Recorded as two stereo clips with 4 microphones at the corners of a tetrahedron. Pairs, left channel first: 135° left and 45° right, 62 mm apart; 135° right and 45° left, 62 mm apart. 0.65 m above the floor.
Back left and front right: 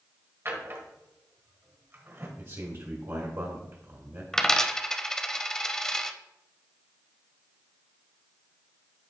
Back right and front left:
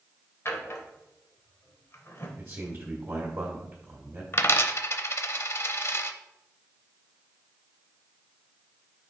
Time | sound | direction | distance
0.5 | a drawer | 95° right | 1.3 m
2.4 | a man speaking | 20° right | 1.5 m
4.3 | a dropped coin | 145° right | 0.5 m